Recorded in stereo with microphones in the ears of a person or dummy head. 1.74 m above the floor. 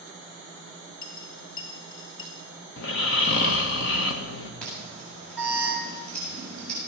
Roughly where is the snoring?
Left.